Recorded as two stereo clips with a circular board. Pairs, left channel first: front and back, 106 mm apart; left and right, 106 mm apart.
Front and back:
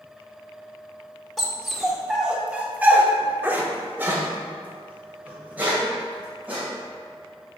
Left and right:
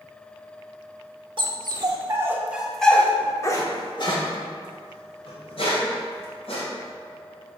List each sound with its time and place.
1.4 s a dog barking: 90° right, 1.0 m; by 6.6 s 105° left, 2.5 m